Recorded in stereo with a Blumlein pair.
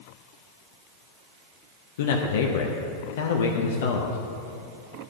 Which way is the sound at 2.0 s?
55° left.